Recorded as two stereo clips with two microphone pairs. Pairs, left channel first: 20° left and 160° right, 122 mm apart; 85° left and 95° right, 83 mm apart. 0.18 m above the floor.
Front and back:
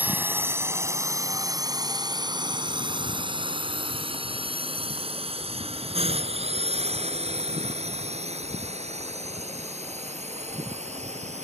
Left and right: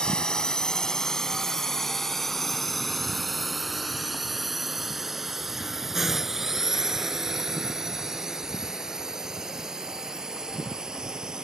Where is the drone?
150° left; by 11.4 s 175° right.